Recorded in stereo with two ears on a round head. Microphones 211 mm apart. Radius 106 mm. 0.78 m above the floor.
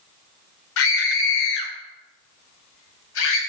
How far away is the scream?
About 2.5 m.